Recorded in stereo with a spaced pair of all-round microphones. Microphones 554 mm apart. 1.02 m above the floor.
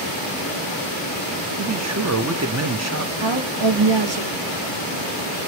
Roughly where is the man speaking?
Right.